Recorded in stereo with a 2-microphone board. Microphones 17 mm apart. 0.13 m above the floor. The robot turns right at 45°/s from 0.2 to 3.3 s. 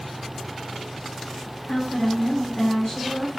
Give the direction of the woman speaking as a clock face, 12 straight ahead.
10 o'clock.